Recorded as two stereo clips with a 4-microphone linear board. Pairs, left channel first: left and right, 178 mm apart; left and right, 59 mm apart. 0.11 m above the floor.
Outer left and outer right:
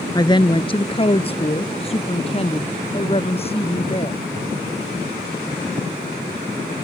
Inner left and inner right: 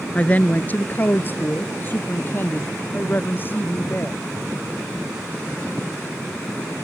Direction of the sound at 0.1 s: 25° left (ahead or behind).